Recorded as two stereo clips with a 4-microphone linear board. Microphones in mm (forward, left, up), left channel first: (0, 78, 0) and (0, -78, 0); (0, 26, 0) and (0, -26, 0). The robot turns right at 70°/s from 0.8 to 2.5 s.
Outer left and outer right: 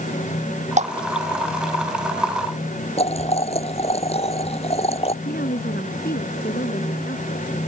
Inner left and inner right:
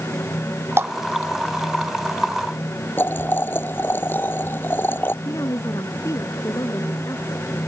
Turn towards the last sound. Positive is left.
turn(degrees=85)